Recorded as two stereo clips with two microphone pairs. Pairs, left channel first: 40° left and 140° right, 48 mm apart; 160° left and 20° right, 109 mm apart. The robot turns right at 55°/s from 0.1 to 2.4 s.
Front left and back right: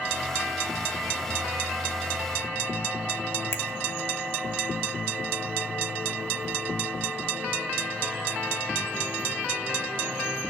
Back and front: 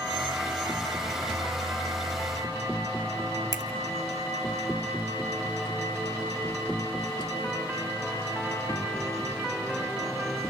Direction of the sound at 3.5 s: 30° left.